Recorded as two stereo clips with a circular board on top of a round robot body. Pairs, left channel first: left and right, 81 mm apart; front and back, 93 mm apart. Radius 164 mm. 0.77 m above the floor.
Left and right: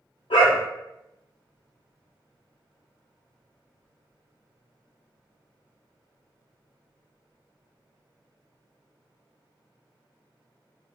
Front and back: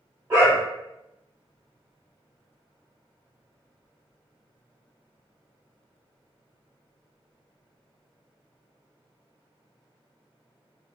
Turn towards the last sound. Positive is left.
turn(degrees=110)